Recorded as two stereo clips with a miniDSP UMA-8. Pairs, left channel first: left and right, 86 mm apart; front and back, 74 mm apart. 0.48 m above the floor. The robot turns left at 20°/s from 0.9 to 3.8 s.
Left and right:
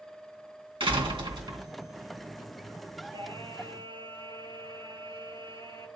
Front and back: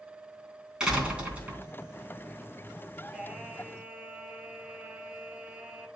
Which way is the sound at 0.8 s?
100° right.